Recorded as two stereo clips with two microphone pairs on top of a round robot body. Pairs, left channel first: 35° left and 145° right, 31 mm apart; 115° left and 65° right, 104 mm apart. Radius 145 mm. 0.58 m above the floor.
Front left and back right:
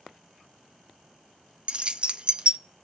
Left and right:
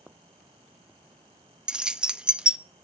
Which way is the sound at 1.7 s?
145° right.